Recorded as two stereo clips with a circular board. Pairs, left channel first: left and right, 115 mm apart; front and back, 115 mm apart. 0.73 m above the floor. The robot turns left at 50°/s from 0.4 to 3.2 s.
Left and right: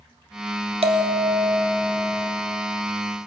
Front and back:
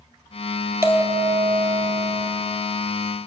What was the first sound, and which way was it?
A bell, 115° right.